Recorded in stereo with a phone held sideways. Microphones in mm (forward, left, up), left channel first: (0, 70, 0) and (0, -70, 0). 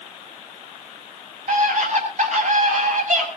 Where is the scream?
60° right (ahead or behind), 8 m; by 3.3 s 65° right (ahead or behind), 7 m.